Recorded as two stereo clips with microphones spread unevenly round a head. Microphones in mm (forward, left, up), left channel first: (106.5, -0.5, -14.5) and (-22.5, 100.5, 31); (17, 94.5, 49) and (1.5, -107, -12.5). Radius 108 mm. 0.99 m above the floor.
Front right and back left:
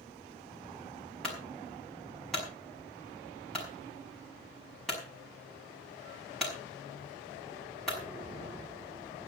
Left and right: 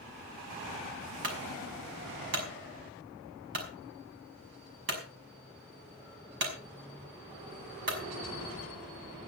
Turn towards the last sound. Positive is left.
turn(degrees=-125)